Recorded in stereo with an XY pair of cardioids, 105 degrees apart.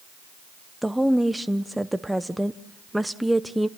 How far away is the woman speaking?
About 0.9 m.